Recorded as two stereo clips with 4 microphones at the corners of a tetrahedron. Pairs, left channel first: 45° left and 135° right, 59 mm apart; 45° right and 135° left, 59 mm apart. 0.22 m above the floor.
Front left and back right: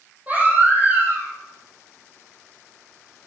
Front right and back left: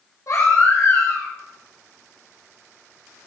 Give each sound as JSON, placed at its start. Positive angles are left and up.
{"t": 0.3, "sound": "a baby crying", "azimuth_deg": -75, "distance_m": 7.5}